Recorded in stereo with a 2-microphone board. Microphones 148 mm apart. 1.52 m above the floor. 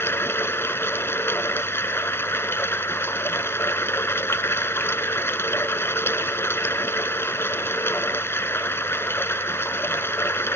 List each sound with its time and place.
0.0 s running water: 15° left (ahead or behind)